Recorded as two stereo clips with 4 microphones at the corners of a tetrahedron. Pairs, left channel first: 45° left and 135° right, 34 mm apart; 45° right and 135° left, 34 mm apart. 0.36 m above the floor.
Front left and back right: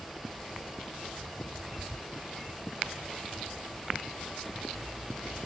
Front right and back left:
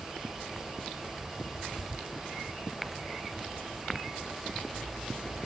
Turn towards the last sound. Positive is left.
No sound to turn to.